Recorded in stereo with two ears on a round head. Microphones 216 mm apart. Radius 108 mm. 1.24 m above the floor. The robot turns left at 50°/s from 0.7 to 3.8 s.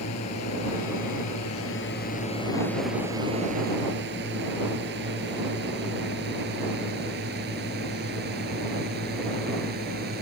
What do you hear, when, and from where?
0.0 s a drone: 75° left (ahead or behind); by 10.2 s 40° right (ahead or behind)